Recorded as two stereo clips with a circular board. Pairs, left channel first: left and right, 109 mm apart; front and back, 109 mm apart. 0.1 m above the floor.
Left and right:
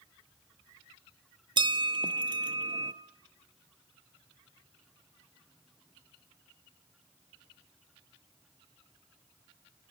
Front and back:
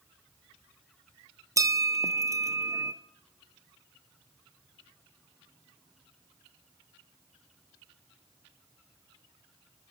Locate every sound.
1.6 s a bell: 125° right, 0.5 m